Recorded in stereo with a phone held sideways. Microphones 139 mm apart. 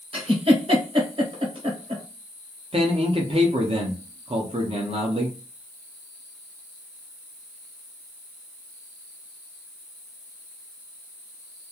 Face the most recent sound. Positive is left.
turn(degrees=-45)  # may be behind; listen again after turning